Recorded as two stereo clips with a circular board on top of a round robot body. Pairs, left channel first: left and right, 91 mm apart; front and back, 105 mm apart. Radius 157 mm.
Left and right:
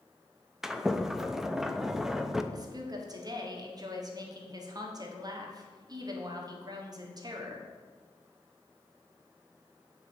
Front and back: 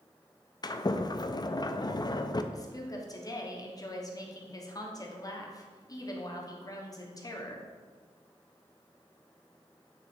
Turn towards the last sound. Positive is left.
turn(degrees=-50)